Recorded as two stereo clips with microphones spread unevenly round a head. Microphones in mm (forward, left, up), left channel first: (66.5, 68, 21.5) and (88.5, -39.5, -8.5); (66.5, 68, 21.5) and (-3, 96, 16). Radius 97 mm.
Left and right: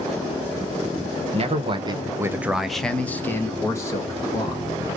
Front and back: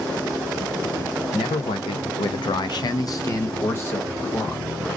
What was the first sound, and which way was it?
A man speaking, 60° right.